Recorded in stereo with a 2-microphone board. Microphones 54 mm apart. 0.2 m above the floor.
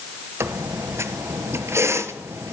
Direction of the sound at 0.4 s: 55° right (ahead or behind).